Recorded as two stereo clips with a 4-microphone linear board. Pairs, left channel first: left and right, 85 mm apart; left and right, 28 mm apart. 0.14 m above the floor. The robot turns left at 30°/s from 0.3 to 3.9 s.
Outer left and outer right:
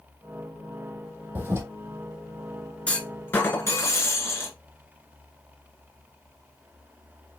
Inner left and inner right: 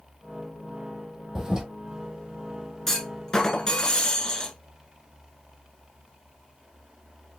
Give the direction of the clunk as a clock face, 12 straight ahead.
7 o'clock.